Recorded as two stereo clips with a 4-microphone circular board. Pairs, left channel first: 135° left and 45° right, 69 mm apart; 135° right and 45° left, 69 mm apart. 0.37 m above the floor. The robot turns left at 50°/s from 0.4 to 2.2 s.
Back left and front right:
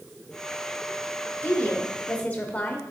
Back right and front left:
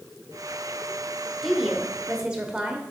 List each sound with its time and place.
1.4 s a woman speaking: 140° left, 0.8 m; by 2.8 s 100° left, 0.8 m